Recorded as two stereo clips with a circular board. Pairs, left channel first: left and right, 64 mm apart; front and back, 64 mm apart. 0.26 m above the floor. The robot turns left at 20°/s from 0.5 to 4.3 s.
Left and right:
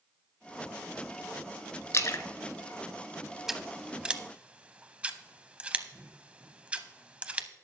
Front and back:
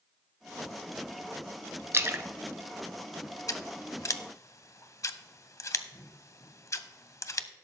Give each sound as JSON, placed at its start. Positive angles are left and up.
{"t": 1.9, "sound": "a splash", "azimuth_deg": 130, "distance_m": 0.7}
{"t": 3.5, "sound": "scissors", "azimuth_deg": -5, "distance_m": 0.5}